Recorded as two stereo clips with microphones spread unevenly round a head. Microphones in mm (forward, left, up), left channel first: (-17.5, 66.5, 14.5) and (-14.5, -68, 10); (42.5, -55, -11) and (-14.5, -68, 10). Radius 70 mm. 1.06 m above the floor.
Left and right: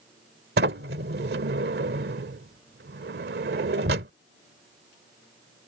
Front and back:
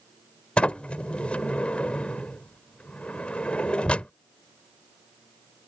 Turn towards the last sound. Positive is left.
turn(degrees=-70)